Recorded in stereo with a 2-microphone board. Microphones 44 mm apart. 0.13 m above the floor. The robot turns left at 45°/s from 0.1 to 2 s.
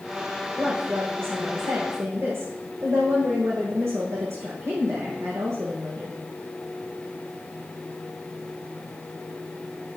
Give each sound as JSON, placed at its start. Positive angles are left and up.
{"t": 0.6, "sound": "a woman speaking", "azimuth_deg": -25, "distance_m": 6.0}